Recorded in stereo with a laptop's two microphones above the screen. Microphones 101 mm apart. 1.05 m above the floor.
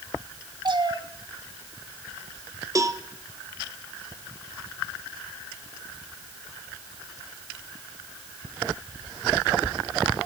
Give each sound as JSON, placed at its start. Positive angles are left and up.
{"t": 0.7, "sound": "a cat meowing", "side_deg": -50, "distance_m": 1.3}
{"t": 2.8, "sound": "a cowbell", "side_deg": -35, "distance_m": 0.8}